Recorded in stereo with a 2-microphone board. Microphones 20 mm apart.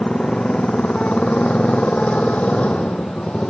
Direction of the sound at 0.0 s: 60° left (ahead or behind).